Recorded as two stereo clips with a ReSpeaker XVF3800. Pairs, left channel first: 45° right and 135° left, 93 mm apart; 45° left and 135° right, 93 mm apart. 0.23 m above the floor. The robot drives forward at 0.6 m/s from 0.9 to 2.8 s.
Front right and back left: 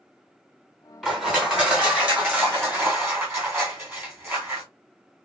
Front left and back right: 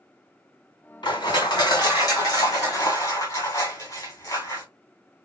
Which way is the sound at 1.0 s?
50° left.